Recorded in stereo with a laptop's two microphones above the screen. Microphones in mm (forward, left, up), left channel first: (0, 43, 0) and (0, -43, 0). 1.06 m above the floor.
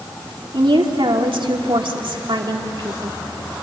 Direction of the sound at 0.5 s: 70° right (ahead or behind).